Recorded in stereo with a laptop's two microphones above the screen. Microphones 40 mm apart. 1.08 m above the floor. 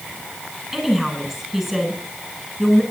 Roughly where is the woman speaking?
Centre.